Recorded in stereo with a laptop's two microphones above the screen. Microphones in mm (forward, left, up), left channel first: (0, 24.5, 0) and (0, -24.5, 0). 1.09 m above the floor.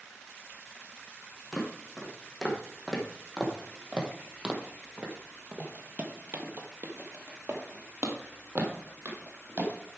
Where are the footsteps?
Centre (ahead or behind), 3 m; by 9.7 s 45° right (ahead or behind), 2 m.